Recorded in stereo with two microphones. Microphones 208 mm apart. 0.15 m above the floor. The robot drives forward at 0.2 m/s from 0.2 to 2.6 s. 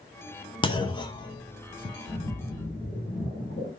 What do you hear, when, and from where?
0.6 s a clunk: 25° left (ahead or behind), 0.6 m; by 1.9 s 20° left (ahead or behind), 0.7 m
2.1 s a splash: 45° left (ahead or behind), 2.5 m